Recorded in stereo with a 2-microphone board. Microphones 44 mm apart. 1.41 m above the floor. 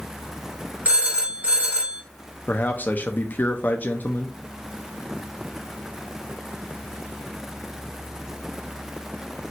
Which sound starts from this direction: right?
A phone ringing, at 0.8 s.